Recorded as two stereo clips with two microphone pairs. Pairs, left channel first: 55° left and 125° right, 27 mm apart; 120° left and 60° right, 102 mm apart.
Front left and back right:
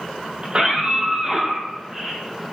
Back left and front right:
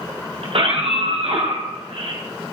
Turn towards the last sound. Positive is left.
turn(degrees=-50)